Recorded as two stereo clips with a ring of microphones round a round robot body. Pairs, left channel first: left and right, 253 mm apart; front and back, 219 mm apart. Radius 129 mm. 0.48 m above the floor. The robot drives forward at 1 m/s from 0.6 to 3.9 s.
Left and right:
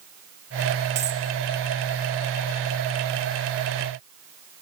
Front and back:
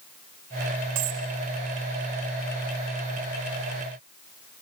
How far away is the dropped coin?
About 2.5 m.